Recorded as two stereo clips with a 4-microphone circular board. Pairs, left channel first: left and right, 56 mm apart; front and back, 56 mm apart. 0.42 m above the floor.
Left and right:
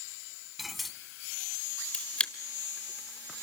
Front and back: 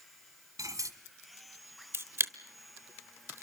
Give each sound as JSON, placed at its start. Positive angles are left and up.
{"t": 0.6, "sound": "cutlery clinking", "azimuth_deg": 180, "distance_m": 1.8}
{"t": 1.9, "sound": "a camera shutter", "azimuth_deg": 155, "distance_m": 1.2}